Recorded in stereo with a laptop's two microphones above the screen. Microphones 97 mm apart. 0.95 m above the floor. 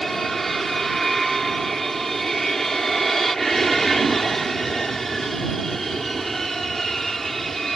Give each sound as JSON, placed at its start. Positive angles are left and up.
{"t": 0.0, "sound": "an aircraft", "side_deg": 0}